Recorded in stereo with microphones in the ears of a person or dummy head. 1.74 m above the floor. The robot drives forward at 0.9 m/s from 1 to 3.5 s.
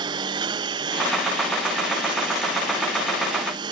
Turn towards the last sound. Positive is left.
turn(degrees=-30)  # may be behind; listen again after turning